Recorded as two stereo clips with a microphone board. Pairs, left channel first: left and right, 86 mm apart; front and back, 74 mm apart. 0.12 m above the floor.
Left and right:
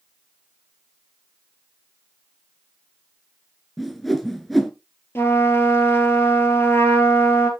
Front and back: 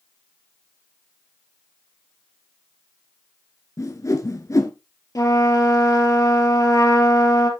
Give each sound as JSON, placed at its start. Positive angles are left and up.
{"t": 3.8, "sound": "a whoosh", "azimuth_deg": 0, "distance_m": 1.1}
{"t": 5.2, "sound": "a trumpet", "azimuth_deg": 30, "distance_m": 2.0}